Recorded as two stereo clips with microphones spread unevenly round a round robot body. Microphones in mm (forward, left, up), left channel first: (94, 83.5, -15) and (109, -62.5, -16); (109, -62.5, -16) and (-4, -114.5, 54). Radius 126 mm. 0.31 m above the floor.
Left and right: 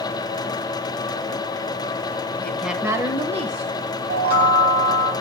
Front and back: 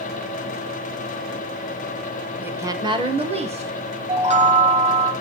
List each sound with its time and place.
2.4 s a woman speaking: 35° left, 1.4 m; by 3.8 s 105° right, 2 m
4.1 s a chime: 115° right, 2 m